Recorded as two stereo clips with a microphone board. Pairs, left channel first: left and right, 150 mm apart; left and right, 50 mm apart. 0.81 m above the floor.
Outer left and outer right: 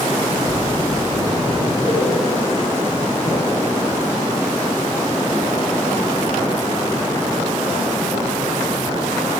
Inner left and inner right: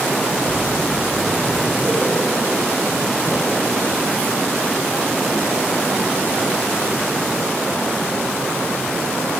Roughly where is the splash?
Right.